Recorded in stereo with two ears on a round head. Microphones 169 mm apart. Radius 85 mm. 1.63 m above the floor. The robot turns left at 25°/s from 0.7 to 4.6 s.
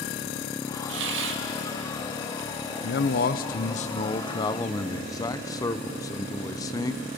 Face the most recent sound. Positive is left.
turn(degrees=20)